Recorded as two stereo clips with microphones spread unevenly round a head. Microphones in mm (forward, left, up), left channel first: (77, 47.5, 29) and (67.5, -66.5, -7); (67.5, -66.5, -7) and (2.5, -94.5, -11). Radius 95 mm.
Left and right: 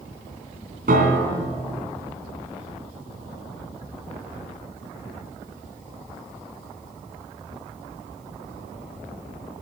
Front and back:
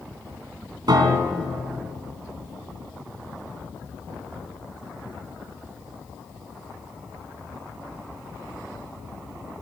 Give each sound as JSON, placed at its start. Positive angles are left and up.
{"t": 0.9, "sound": "a piano", "azimuth_deg": -140, "distance_m": 2.0}